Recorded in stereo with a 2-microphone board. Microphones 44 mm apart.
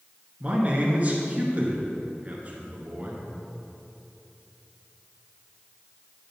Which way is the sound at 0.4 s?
40° right (ahead or behind).